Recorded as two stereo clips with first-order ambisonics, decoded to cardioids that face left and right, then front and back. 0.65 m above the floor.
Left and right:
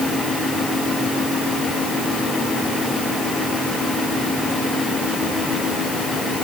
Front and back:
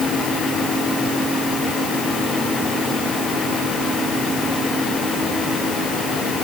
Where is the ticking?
No ticking in this recording.